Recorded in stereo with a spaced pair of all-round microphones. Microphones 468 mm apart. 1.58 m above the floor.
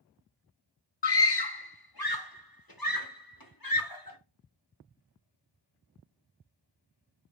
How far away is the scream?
About 0.6 m.